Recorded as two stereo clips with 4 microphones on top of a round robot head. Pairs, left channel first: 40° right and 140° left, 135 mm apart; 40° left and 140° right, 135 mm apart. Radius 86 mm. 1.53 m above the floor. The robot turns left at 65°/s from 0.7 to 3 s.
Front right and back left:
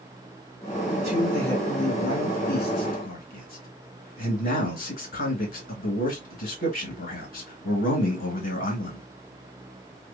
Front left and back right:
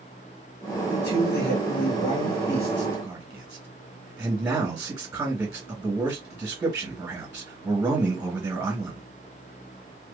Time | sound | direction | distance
0.9 | a man speaking | 75° left | 2 m